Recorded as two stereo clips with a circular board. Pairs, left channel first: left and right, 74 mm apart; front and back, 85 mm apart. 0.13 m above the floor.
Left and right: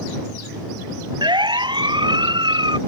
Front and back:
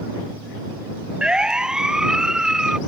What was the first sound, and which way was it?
A siren, 100° right.